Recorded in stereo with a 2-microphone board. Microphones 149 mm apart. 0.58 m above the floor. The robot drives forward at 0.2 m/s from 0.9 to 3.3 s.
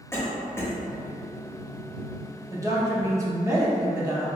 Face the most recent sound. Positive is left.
turn(degrees=-20)  # may be behind; listen again after turning